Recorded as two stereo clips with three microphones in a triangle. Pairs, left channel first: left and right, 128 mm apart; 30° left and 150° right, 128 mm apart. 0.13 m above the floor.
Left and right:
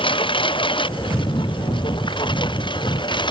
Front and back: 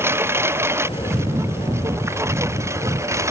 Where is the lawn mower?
140° left; by 3.3 s 145° left.